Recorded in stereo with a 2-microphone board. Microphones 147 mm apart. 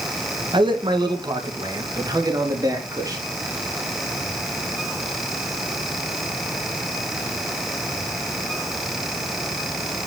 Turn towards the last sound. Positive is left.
turn(degrees=-25)  # may be behind; listen again after turning